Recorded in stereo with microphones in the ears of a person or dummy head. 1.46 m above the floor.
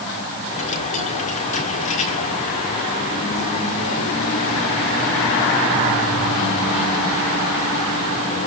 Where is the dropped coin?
35° left (ahead or behind), 1.6 m.